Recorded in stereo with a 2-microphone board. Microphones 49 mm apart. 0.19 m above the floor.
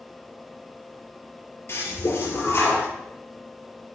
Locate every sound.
1.7 s a toilet flushing: 50° left (ahead or behind), 3.5 m